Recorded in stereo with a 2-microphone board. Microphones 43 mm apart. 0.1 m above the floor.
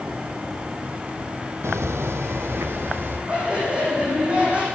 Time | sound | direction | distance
1.6 | footsteps | 85° right | 0.9 m
3.3 | laughter | 30° right (ahead or behind) | 7 m